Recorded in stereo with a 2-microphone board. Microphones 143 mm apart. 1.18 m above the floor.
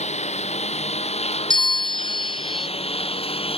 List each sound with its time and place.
0.0 s a lawn mower: 50° left (ahead or behind); by 3.6 s 40° left (ahead or behind)
1.5 s a bell: 30° left (ahead or behind)